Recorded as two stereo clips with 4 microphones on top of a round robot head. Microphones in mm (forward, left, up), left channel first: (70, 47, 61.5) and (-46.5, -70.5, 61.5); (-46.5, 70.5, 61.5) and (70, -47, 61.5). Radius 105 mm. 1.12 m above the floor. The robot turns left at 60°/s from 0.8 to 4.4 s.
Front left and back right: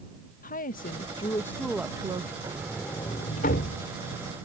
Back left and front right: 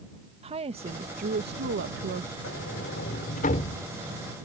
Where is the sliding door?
155° left; by 4.2 s 45° left.